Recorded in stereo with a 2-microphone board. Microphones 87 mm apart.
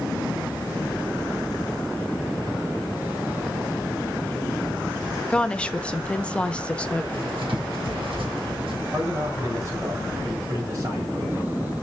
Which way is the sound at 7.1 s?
80° right.